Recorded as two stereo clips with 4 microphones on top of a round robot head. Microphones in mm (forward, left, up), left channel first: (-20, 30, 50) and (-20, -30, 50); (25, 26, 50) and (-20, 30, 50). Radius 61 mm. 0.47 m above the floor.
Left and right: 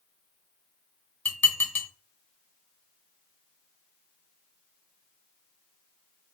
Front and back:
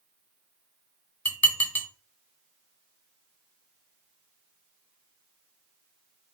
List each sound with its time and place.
1.2 s dishes clattering: 35° left, 0.9 m